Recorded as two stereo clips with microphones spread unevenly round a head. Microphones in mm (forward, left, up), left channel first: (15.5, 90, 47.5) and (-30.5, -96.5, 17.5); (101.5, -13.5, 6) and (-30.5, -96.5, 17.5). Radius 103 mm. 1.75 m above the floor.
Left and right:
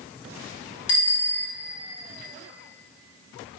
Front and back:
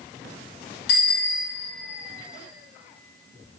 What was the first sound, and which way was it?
A bicycle bell, 55° left.